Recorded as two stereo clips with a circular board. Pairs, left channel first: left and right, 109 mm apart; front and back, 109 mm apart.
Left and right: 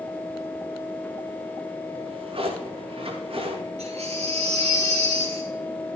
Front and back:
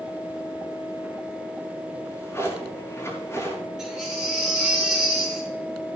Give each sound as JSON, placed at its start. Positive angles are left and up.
{"t": 1.9, "sound": "a drawer", "azimuth_deg": -65, "distance_m": 6.0}
{"t": 3.8, "sound": "a baby crying", "azimuth_deg": -95, "distance_m": 7.5}